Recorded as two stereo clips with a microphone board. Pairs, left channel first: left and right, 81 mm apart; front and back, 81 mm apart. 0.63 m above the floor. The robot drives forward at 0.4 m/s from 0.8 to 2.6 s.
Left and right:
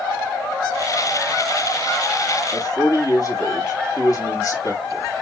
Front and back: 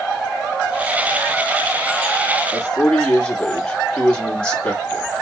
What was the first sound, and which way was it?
A man speaking, 70° left.